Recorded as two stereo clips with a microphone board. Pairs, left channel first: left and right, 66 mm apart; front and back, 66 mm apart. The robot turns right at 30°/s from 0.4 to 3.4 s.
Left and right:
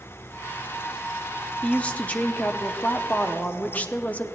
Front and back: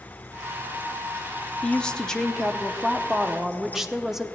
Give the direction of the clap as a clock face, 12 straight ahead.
No clap in this recording.